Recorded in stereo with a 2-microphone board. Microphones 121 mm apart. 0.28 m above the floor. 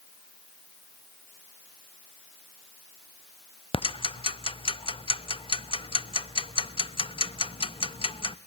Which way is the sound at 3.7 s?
45° left (ahead or behind).